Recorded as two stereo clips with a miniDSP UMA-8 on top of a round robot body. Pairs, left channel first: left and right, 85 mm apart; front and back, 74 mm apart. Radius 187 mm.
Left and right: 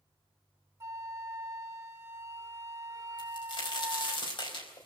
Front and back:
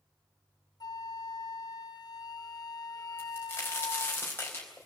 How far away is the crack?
About 4.5 m.